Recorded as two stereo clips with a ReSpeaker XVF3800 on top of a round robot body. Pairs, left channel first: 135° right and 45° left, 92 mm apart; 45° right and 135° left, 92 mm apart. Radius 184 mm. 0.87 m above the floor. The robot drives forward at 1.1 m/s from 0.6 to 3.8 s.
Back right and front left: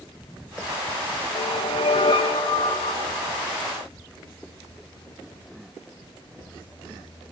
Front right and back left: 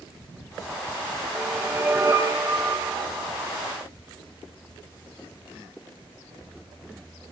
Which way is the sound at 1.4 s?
140° right.